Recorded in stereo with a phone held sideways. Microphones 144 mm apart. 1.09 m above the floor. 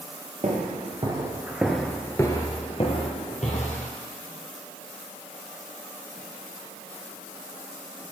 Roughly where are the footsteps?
Right.